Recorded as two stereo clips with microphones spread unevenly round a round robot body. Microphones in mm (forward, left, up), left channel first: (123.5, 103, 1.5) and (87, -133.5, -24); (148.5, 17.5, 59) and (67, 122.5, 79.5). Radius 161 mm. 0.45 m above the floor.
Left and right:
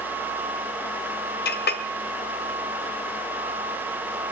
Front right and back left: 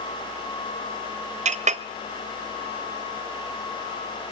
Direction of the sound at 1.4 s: 125° left.